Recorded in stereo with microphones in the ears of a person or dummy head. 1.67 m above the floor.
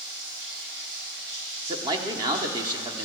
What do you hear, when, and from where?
0.0 s running water: 65° right (ahead or behind), 4 m
1.7 s a man speaking: 25° right (ahead or behind), 0.9 m